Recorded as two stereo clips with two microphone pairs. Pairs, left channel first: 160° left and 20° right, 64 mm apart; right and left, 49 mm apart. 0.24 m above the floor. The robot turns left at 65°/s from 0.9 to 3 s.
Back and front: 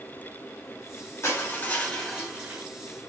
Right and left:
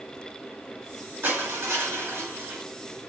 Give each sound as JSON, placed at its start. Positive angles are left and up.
{"t": 1.2, "sound": "crushing", "azimuth_deg": 125, "distance_m": 3.0}